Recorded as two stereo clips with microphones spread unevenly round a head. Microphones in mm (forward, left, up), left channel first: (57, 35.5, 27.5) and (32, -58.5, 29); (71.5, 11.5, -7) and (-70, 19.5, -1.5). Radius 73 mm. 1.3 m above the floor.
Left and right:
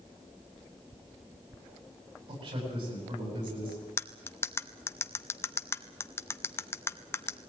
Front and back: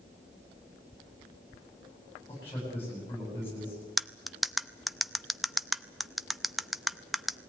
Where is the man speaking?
80° right, 10 m.